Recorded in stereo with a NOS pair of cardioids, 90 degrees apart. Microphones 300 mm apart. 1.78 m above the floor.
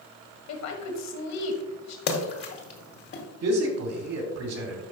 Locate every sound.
0.5 s a woman speaking: 65° left, 1.6 m
2.1 s a splash: 50° left, 1.8 m
3.4 s a man speaking: 60° right, 2.5 m